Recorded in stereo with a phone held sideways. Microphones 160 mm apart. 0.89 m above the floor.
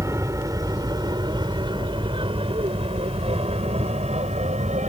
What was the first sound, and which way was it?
An aircraft, 20° right (ahead or behind).